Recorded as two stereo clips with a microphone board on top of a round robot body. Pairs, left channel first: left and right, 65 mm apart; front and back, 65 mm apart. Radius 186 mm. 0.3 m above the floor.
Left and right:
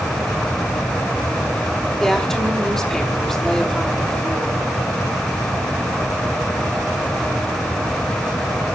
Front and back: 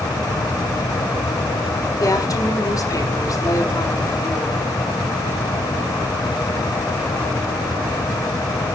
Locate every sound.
2.0 s a woman speaking: 5° left, 2 m